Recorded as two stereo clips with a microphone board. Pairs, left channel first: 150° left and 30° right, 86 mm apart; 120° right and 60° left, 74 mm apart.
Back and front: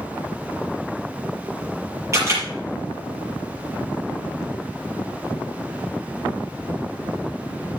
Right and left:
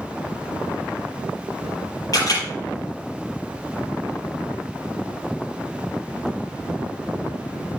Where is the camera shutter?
85° right, 6 m.